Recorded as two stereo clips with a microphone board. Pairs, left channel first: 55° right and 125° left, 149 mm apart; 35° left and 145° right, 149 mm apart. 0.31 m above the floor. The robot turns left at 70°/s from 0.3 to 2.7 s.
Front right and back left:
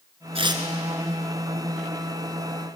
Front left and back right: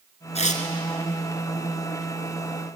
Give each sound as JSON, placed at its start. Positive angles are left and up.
{"t": 0.3, "sound": "tearing paper", "azimuth_deg": 75, "distance_m": 1.8}